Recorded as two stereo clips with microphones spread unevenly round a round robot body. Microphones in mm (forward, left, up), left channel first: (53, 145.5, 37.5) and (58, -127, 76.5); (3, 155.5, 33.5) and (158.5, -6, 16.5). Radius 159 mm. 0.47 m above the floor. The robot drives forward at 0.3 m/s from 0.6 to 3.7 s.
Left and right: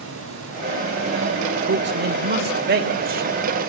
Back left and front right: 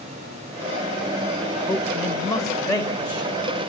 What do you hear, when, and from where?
1.7 s a man speaking: 140° right, 1.6 m; by 3.6 s 150° right, 2 m